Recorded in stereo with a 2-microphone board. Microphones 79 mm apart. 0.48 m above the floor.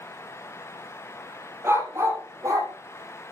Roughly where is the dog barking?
Right.